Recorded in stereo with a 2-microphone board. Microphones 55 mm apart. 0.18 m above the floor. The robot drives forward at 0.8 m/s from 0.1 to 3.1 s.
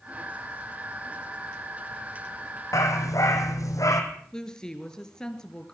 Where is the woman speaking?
10° left (ahead or behind), 3 m.